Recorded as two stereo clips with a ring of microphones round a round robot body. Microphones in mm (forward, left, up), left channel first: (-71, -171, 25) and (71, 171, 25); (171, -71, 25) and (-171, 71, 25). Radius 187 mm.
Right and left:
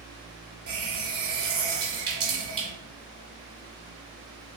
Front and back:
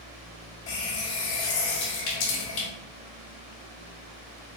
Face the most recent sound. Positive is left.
turn(degrees=10)